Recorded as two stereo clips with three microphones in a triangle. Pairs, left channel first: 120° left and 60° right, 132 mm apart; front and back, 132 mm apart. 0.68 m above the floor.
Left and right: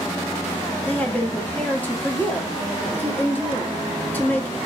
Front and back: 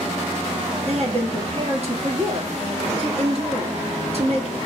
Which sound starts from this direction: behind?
A woman speaking, at 0.9 s.